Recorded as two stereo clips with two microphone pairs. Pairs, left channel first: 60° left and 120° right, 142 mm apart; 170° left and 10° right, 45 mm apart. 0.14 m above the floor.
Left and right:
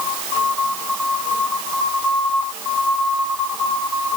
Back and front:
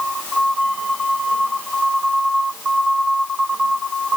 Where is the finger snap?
No finger snap in this recording.